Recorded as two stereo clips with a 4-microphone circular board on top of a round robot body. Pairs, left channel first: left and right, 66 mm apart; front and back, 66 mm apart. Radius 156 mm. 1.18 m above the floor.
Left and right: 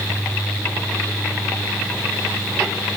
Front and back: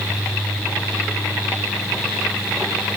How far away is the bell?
No bell in this recording.